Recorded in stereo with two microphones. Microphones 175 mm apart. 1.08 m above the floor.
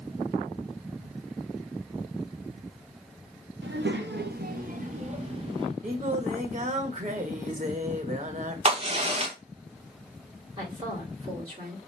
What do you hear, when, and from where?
3.6 s a child speaking: 85° right, 0.9 m; by 5.7 s 30° right (ahead or behind), 1.8 m
5.8 s singing: 45° right (ahead or behind), 0.8 m
8.7 s a crack: 35° right (ahead or behind), 1.4 m
10.6 s a woman speaking: 25° right (ahead or behind), 3.5 m